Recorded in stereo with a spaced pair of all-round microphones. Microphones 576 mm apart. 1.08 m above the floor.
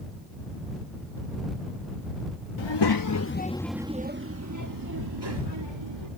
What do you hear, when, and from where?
2.6 s a child speaking: 55° left (ahead or behind); by 6.1 s 50° right (ahead or behind)